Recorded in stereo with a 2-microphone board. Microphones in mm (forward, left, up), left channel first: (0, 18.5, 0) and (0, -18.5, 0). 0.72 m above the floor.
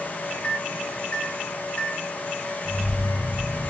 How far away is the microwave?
About 0.7 m.